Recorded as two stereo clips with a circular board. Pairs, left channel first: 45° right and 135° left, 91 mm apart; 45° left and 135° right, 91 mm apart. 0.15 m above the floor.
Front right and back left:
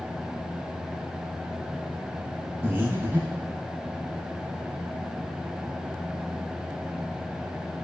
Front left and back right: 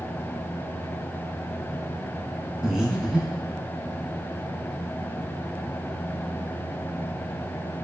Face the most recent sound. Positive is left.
turn(degrees=150)